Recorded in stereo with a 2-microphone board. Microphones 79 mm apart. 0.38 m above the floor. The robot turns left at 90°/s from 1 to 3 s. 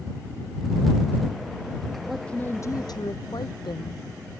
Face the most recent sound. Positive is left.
turn(degrees=100)